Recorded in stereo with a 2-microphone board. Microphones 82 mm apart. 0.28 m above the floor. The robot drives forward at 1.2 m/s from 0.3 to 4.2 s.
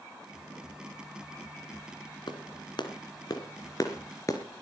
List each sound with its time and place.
2.3 s a clap: 70° left (ahead or behind), 2 m; by 4.4 s 40° left (ahead or behind), 3 m